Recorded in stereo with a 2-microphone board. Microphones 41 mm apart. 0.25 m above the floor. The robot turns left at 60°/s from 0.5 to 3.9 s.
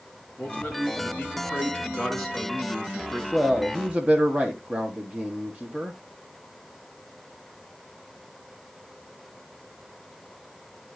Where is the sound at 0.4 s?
115° left, 3.5 m; by 3.2 s 45° right, 3.5 m.